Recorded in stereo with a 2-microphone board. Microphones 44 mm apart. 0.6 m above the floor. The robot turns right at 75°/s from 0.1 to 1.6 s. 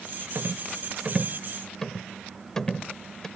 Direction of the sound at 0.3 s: 75° right (ahead or behind).